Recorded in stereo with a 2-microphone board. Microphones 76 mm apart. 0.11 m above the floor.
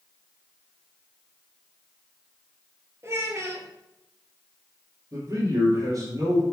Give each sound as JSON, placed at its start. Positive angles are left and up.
{"t": 3.0, "sound": "a child speaking", "side_deg": -40, "distance_m": 1.8}
{"t": 5.1, "sound": "a man speaking", "side_deg": -50, "distance_m": 3.0}